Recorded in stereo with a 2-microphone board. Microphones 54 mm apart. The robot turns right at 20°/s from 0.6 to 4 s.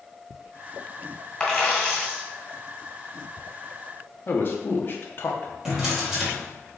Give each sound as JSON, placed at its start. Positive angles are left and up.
{"t": 1.4, "sound": "a dropped coin", "side_deg": 10, "distance_m": 1.3}
{"t": 4.3, "sound": "a man speaking", "side_deg": 45, "distance_m": 0.6}
{"t": 5.7, "sound": "a drawer", "side_deg": -10, "distance_m": 1.1}